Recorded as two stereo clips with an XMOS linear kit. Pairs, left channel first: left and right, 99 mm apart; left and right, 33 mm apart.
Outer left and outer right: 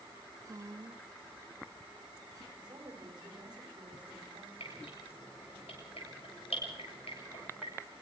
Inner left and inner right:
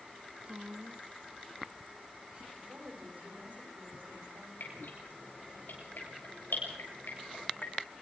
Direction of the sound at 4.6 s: 85° left.